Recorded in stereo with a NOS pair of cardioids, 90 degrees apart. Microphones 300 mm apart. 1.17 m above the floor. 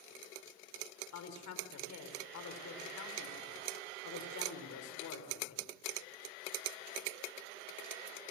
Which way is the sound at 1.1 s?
70° left.